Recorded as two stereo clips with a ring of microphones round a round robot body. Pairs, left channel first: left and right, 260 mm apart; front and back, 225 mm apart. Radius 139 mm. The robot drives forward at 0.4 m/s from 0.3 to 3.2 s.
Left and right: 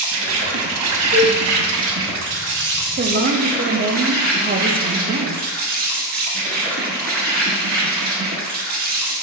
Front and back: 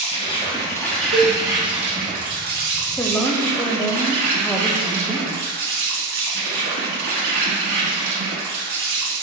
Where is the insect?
65° right, 0.8 m; by 9.2 s 145° right, 1.1 m.